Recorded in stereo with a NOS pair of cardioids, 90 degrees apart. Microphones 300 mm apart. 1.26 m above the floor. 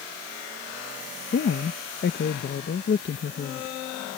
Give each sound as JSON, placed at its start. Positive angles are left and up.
{"t": 1.3, "sound": "a woman speaking", "azimuth_deg": 40}